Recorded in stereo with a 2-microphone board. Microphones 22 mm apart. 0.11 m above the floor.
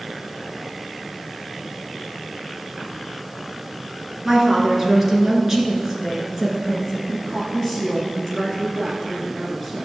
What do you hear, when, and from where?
4.2 s a woman speaking: 20° right (ahead or behind), 1.6 m
7.1 s a woman speaking: 5° right (ahead or behind), 1.5 m